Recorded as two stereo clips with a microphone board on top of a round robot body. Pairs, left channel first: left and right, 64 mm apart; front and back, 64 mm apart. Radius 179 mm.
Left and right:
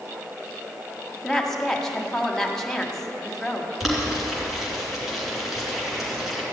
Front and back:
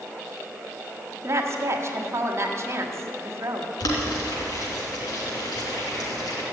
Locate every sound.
1.2 s a woman speaking: 170° left, 1.7 m
3.8 s boiling: straight ahead, 3 m